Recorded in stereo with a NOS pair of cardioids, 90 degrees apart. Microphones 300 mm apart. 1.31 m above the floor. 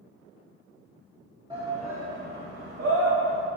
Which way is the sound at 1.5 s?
15° right.